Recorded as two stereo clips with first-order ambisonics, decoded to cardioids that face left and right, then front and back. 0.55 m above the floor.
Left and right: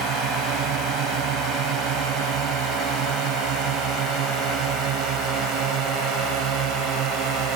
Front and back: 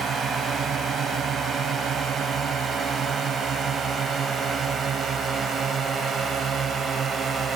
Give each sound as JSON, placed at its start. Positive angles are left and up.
{"t": 0.0, "sound": "a drone", "azimuth_deg": -125}